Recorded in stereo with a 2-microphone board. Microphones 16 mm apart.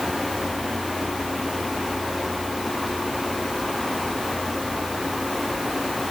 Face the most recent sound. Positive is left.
No sound to turn to.